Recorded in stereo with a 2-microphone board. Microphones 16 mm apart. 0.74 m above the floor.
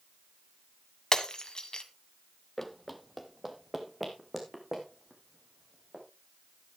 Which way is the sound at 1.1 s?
50° left (ahead or behind).